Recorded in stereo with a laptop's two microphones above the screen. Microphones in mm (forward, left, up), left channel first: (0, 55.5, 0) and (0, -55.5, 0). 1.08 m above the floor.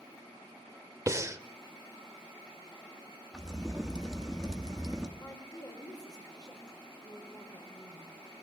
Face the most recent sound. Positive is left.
turn(degrees=40)  # may be behind; listen again after turning